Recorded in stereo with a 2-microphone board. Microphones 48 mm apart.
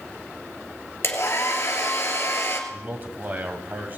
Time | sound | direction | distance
1.0 | a hair dryer | 55° left (ahead or behind) | 2 m
2.7 | a man speaking | 35° right (ahead or behind) | 1.8 m